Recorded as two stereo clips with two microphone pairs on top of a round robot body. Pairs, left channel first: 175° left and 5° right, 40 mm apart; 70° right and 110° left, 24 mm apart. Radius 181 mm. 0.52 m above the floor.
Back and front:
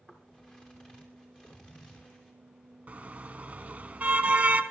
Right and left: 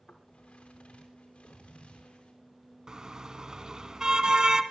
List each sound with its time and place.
0.1 s footsteps: 120° right, 5.5 m; by 2.3 s 125° right, 8 m
2.9 s a car horn: 50° left, 2.5 m